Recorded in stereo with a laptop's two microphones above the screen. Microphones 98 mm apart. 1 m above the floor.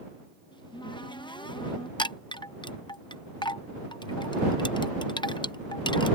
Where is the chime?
55° left (ahead or behind).